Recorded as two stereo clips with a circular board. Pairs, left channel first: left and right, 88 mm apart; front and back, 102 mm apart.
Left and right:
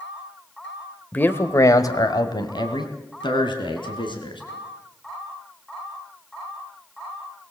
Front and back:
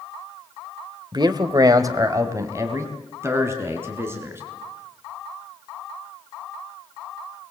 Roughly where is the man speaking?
Behind left.